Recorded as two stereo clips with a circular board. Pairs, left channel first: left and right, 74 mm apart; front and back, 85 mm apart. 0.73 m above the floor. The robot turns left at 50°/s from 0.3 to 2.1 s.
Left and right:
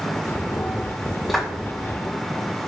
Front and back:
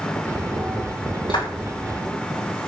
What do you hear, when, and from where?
1.3 s a clap: straight ahead, 5 m; by 1.5 s 10° right, 5 m